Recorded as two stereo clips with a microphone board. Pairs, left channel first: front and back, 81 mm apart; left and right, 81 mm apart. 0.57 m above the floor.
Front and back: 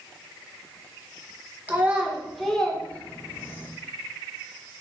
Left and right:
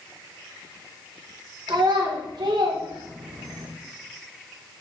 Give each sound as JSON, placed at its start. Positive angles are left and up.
{"t": 1.7, "sound": "a child speaking", "azimuth_deg": -115, "distance_m": 1.8}